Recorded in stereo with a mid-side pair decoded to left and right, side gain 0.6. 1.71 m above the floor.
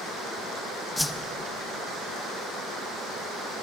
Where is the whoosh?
5° left, 1.4 m.